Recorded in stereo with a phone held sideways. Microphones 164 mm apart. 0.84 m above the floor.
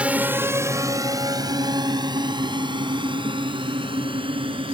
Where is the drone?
10° right (ahead or behind); by 4.7 s 30° right (ahead or behind).